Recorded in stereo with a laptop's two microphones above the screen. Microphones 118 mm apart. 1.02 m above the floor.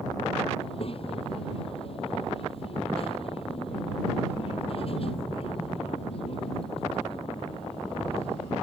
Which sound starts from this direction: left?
A child speaking, at 0.6 s.